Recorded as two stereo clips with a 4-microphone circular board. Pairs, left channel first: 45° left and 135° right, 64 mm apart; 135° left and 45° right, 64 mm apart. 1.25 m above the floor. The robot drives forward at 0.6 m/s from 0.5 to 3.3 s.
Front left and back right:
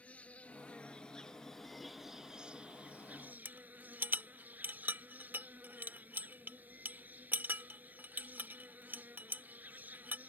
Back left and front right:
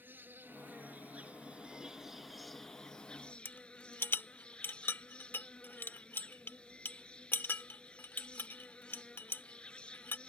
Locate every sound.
0.0 s an insect: 10° right; by 10.3 s 170° right
3.5 s a rattle: 175° left